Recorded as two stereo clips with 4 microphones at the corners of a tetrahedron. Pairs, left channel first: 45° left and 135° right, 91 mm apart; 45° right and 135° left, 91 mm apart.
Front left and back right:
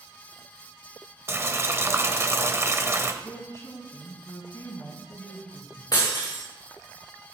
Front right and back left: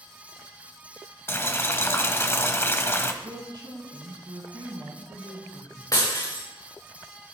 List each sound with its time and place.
1.3 s boiling: 90° right, 1.0 m
3.2 s a woman speaking: 100° left, 3.5 m
5.9 s breaking glass: 5° left, 5 m